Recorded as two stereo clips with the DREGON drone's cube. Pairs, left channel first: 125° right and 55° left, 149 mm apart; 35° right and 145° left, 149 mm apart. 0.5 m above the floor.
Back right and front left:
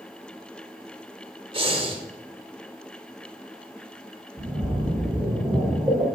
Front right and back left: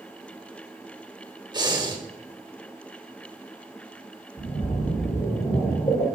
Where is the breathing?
95° left, 0.7 m.